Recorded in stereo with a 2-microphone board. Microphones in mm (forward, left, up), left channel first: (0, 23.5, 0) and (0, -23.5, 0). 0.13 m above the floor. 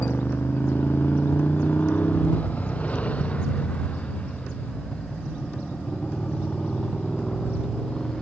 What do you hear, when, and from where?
0.0 s a motorcycle: 45° left (ahead or behind); by 8.2 s 20° left (ahead or behind)